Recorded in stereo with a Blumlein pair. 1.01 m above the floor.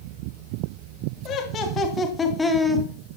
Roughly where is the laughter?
Ahead left.